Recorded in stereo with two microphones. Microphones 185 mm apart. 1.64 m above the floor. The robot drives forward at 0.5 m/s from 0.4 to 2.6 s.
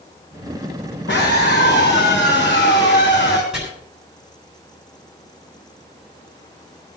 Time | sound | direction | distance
1.1 | a scream | 80° left | 2.5 m
3.5 | chopping | 5° right (ahead or behind) | 6.5 m